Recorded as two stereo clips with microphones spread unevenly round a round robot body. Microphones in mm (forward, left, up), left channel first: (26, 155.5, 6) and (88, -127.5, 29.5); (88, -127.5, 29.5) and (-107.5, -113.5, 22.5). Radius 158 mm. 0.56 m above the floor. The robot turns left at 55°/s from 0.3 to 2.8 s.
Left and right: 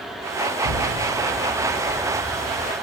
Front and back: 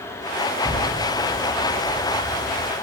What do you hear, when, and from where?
0.6 s an explosion: 95° left, 2.5 m; by 2.7 s 20° right, 2.5 m